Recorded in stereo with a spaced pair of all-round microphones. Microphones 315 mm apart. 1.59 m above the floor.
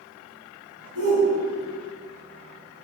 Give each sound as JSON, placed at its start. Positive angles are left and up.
{"t": 0.9, "sound": "a shout", "side_deg": -50, "distance_m": 3.5}